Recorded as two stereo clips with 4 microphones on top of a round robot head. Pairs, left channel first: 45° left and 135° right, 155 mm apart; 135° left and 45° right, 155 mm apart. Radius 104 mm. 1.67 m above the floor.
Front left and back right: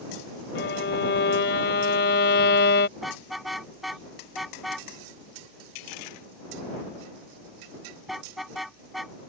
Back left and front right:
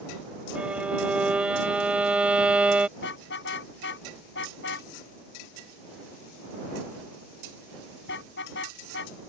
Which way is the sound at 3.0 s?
135° left.